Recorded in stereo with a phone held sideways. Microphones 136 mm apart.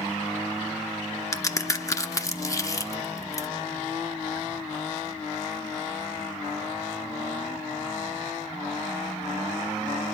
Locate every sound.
1.3 s a crack: 25° left (ahead or behind), 0.8 m